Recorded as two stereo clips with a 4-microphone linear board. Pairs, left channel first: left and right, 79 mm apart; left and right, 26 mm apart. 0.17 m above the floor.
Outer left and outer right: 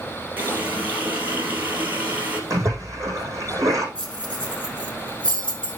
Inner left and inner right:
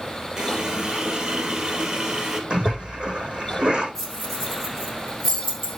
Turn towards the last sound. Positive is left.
turn(degrees=10)  # may be behind; listen again after turning